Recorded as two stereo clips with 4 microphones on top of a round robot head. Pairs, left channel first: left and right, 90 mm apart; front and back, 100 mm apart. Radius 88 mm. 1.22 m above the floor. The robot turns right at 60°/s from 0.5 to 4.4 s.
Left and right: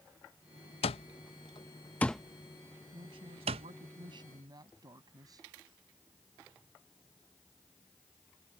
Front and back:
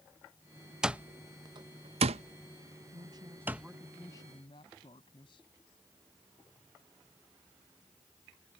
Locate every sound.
0.8 s an alarm clock: 95° left; by 3.7 s 95° right
2.9 s a woman speaking: 135° right; by 5.5 s 50° right